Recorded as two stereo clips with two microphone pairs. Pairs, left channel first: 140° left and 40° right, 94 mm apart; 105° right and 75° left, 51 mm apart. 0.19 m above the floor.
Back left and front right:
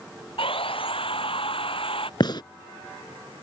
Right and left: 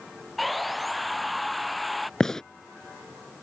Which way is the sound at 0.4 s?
165° left.